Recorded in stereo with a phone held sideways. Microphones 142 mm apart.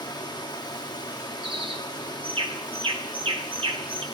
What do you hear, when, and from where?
0.0 s running water: 30° left (ahead or behind), 1.2 m
1.4 s a bird: 40° right (ahead or behind), 1.3 m